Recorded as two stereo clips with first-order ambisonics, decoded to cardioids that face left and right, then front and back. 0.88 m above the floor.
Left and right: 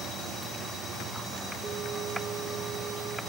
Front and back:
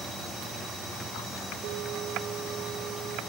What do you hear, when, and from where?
1.6 s a bell: 160° right, 2.0 m